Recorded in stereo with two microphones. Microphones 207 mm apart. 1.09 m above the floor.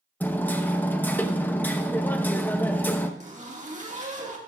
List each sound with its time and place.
0.2 s hammering: 10° left (ahead or behind), 0.7 m
3.2 s a zipper: 35° right (ahead or behind), 1.6 m